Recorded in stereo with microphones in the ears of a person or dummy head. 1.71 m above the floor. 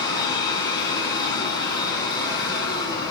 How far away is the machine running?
About 3.5 m.